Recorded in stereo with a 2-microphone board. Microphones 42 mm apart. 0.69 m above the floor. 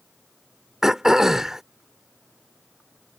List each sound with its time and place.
0.8 s throat clearing: 10° right (ahead or behind)